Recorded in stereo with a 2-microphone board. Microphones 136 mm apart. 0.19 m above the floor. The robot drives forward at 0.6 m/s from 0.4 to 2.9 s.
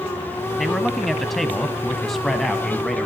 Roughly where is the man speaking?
Centre.